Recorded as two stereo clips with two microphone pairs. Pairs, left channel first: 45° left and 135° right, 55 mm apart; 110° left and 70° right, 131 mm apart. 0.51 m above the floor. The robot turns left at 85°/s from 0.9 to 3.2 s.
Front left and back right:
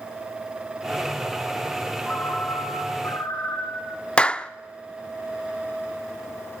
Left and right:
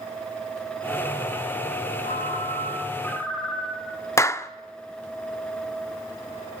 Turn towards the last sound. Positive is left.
turn(degrees=80)